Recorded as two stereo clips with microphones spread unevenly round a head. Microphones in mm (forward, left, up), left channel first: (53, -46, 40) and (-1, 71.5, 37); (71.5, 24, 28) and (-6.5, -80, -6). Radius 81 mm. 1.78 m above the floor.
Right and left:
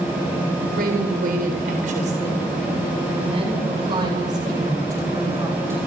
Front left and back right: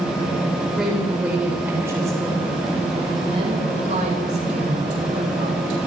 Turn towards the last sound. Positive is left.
turn(degrees=-170)